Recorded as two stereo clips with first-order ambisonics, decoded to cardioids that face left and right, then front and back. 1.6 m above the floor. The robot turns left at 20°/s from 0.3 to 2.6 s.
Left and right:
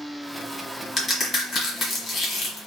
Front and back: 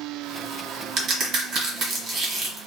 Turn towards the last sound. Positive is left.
turn(degrees=120)